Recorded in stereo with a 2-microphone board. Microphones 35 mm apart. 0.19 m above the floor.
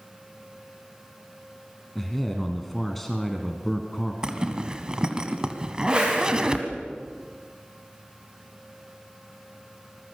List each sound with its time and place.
1.9 s a man speaking: 5° left (ahead or behind), 1.9 m
4.2 s a zipper: 20° right (ahead or behind), 1.7 m
5.9 s a whoosh: 25° right (ahead or behind), 7.5 m